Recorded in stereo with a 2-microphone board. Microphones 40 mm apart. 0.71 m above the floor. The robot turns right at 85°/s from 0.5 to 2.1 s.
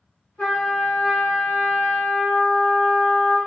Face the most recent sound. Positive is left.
turn(degrees=-95)